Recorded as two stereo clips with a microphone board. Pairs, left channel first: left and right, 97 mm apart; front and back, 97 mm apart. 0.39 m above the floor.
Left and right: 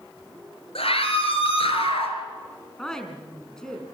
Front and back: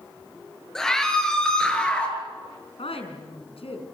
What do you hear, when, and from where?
0.8 s a scream: 85° left, 6 m; by 2.1 s 80° left, 5.5 m
2.8 s a woman speaking: 5° left, 4.5 m